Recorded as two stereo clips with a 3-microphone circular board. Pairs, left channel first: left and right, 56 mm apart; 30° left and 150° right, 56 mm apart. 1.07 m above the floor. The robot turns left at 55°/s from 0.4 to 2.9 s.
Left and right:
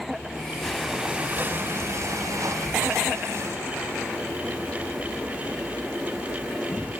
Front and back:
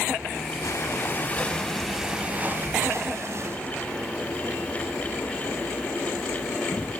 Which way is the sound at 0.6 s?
5° left.